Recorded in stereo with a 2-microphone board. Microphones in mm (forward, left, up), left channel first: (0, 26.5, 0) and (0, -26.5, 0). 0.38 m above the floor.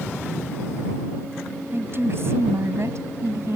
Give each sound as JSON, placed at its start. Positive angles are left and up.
{"t": 1.7, "sound": "a woman speaking", "side_deg": -45}